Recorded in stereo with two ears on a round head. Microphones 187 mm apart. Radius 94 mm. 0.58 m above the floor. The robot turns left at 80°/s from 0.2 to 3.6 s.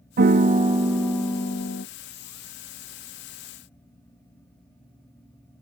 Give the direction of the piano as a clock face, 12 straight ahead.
4 o'clock.